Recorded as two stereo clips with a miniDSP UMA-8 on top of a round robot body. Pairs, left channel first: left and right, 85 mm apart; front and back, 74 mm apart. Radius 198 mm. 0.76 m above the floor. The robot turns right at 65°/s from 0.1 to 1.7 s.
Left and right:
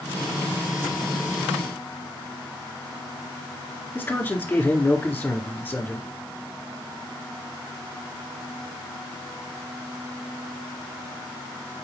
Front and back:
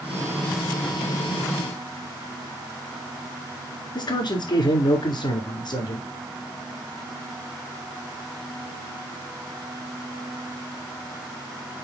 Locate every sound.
4.0 s a man speaking: 20° left, 2.5 m